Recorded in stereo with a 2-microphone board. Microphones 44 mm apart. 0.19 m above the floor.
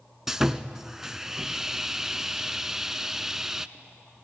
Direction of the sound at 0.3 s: 15° right (ahead or behind).